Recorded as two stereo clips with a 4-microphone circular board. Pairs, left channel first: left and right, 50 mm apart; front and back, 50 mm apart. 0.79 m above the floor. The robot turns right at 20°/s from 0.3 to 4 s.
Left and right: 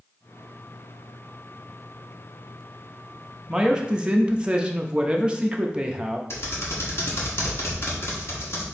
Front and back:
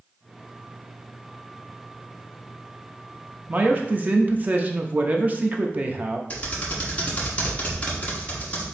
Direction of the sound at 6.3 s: 60° left.